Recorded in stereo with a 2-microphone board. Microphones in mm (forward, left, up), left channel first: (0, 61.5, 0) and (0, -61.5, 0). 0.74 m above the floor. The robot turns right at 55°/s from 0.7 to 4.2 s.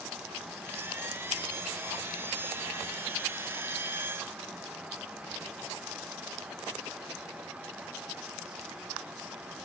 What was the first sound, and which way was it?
Only background noise.